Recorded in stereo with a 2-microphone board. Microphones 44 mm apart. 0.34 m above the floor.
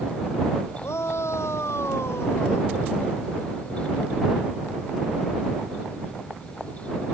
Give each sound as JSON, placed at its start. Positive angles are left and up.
{"t": 0.8, "sound": "a shout", "side_deg": 85}